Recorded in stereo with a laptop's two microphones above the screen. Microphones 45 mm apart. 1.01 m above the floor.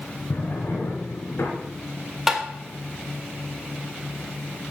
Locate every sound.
0.3 s a drawer: 75° left (ahead or behind), 3 m
2.3 s tapping: 5° right (ahead or behind), 2 m